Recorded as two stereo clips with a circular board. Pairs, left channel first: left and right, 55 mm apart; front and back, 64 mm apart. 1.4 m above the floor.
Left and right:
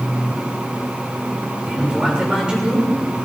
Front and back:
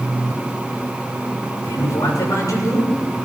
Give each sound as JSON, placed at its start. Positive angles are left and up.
{"t": 1.6, "sound": "a man speaking", "azimuth_deg": -15, "distance_m": 6.5}